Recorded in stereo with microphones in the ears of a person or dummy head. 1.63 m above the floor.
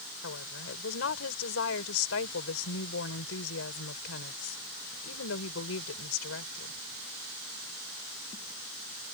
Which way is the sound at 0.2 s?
85° left.